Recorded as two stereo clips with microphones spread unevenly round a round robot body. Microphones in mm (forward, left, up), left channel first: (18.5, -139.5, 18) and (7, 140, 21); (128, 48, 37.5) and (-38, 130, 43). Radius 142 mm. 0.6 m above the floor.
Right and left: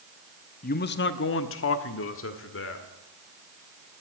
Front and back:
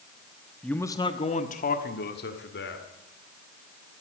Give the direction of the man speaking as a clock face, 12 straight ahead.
4 o'clock.